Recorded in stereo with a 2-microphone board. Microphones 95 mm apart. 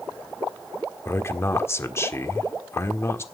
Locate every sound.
1.1 s a man speaking: 25° left (ahead or behind), 1.4 m